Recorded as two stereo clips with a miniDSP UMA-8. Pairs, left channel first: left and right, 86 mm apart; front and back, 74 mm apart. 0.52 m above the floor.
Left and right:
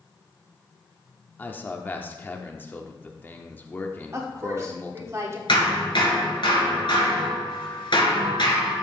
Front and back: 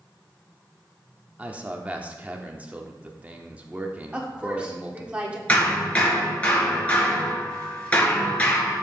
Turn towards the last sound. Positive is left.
turn(degrees=75)